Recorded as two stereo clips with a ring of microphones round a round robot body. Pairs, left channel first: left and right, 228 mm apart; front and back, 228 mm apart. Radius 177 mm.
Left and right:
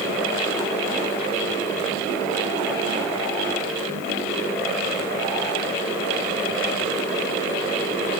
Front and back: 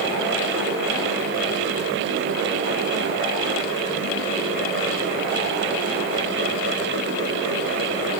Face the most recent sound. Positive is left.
No sound to turn to.